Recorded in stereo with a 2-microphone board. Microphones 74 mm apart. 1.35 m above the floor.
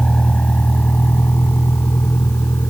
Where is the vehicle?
10° left (ahead or behind); by 2.7 s 40° left (ahead or behind).